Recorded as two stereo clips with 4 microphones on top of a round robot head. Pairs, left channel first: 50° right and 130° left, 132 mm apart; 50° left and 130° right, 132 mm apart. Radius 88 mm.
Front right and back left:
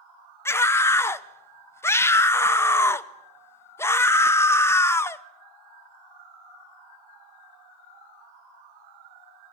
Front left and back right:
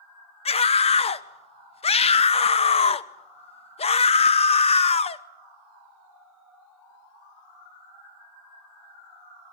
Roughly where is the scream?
Ahead.